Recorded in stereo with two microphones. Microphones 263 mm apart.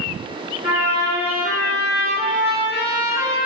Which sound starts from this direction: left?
A trumpet, at 0.6 s.